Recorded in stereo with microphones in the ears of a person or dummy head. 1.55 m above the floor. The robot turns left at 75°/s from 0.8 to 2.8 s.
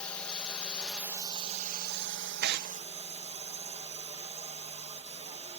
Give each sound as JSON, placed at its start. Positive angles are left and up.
{"t": 0.0, "sound": "a drone", "azimuth_deg": 10}
{"t": 2.4, "sound": "tearing paper", "side_deg": -55}